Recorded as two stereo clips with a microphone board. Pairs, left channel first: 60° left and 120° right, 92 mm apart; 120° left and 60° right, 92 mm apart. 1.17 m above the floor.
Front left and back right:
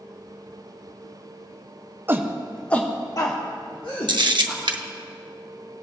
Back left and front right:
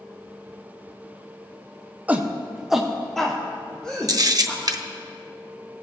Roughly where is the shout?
Right.